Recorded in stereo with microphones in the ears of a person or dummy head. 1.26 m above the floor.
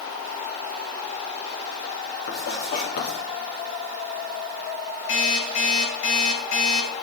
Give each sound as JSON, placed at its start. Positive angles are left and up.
{"t": 2.3, "sound": "writing", "side_deg": 55, "distance_m": 3.5}
{"t": 5.1, "sound": "an alarm clock", "side_deg": 80, "distance_m": 4.0}